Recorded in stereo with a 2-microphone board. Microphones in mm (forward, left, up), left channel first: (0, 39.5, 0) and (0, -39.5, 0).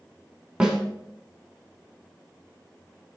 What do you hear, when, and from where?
0.6 s a snare drum: 10° right (ahead or behind), 1.3 m